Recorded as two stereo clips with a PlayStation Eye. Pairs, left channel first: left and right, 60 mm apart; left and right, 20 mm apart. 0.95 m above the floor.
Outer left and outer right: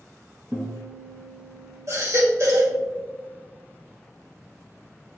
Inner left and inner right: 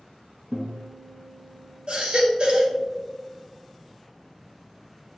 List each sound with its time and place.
0.5 s a guitar: 30° right (ahead or behind), 1.6 m
1.9 s a baby crying: 55° right (ahead or behind), 1.9 m